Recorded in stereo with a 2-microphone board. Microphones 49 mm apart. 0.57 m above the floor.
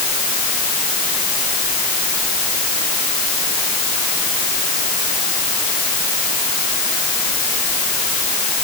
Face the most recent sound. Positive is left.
No sound to turn to.